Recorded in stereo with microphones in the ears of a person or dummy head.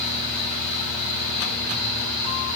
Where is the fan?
30° right (ahead or behind), 2 m.